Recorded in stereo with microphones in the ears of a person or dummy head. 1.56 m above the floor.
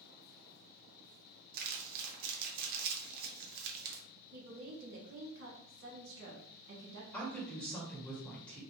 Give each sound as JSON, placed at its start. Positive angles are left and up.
{"t": 1.5, "sound": "crumpling", "side_deg": -55, "distance_m": 0.7}
{"t": 4.3, "sound": "a woman speaking", "side_deg": -60, "distance_m": 1.0}
{"t": 7.1, "sound": "a woman speaking", "side_deg": 5, "distance_m": 1.5}